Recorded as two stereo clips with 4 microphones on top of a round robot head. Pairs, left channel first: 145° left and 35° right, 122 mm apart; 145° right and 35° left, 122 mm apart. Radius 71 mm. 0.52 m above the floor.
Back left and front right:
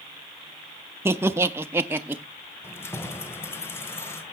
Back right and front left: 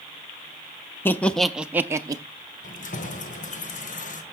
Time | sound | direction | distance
1.1 | laughter | 90° right | 0.7 m
2.6 | keys jangling | 145° right | 1.6 m